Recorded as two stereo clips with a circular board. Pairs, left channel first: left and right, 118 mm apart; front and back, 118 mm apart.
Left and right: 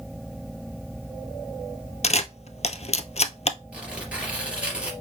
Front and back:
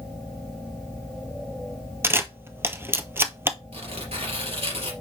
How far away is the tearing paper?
About 3 m.